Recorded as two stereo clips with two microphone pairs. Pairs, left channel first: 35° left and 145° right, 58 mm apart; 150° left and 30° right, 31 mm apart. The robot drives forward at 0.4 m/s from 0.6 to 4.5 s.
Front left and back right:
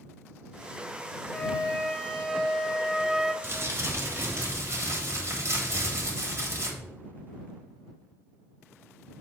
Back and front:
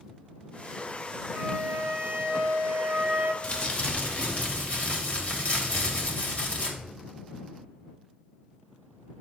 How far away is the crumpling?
About 0.9 m.